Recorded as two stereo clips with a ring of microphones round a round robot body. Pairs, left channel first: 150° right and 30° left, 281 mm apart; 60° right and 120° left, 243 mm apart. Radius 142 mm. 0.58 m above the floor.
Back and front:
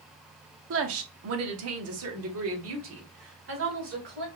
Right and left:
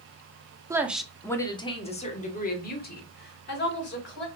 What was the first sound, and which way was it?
A woman speaking, 45° left.